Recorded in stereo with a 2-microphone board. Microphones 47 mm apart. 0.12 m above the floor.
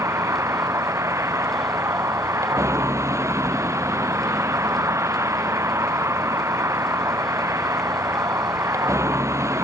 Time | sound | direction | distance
0.0 | a vehicle | 80° right | ?